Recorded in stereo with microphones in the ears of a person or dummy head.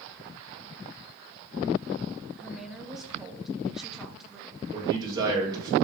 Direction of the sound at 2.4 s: 5° right (ahead or behind).